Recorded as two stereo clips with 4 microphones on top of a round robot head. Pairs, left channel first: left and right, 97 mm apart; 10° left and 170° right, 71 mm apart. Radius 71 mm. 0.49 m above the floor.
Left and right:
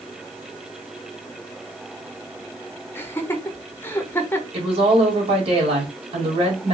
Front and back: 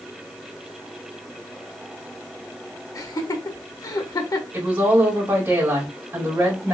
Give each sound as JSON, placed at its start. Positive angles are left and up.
{"t": 3.0, "sound": "laughter", "azimuth_deg": 25, "distance_m": 1.3}
{"t": 4.5, "sound": "a woman speaking", "azimuth_deg": -105, "distance_m": 2.0}